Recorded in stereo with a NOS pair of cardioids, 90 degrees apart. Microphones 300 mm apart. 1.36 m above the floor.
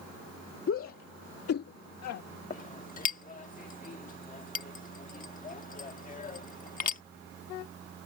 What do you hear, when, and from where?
0.7 s a shout: 45° left; by 2.2 s 60° left
2.5 s a clink: 30° left